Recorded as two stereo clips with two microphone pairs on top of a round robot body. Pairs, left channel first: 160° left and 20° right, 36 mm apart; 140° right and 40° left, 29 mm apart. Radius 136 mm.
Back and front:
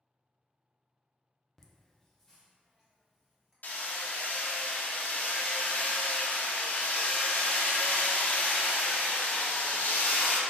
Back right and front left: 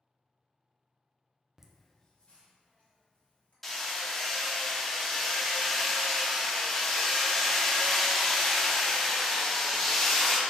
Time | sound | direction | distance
1.6 | laughter | 120° left | 0.7 m
3.6 | hammering | 140° left | 0.6 m